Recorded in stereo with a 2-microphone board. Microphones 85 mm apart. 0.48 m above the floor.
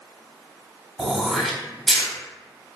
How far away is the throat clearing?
About 0.9 m.